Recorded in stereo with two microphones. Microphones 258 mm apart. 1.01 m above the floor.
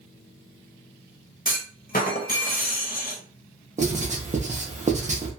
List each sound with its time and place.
1.4 s a clunk: 35° left (ahead or behind), 0.7 m
3.8 s writing: 25° right (ahead or behind), 0.7 m